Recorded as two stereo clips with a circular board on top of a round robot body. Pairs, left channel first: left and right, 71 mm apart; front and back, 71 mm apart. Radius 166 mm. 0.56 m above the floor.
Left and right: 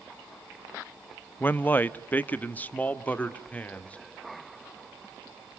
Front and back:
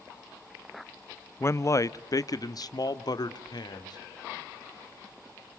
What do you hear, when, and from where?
1.4 s a man speaking: 35° left, 0.8 m; by 4.0 s 15° left, 1.9 m